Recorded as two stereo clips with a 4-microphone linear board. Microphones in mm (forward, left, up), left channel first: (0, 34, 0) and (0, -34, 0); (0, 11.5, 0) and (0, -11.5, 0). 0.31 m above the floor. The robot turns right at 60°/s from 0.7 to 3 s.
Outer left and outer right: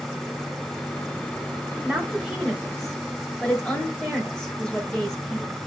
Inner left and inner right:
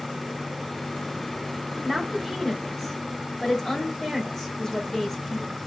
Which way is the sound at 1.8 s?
20° right (ahead or behind).